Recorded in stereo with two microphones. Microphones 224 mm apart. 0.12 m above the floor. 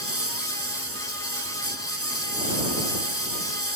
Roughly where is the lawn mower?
Right.